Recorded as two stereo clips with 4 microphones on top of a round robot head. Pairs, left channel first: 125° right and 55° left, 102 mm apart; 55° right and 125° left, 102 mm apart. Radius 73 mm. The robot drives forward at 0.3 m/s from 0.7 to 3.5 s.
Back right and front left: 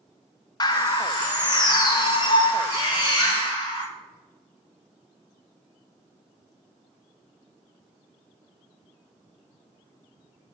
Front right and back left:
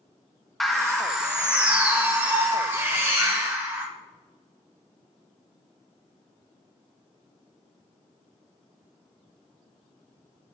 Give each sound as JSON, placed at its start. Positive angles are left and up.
{"t": 0.6, "sound": "a bird", "azimuth_deg": -140, "distance_m": 0.6}